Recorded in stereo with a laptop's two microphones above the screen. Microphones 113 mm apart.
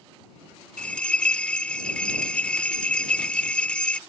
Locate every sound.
0.8 s a bell: 10° left (ahead or behind)